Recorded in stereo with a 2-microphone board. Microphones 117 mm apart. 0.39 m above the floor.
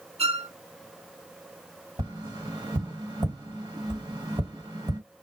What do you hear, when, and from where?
0.2 s a violin: 65° right (ahead or behind), 0.6 m
2.0 s tapping: 40° right (ahead or behind), 2 m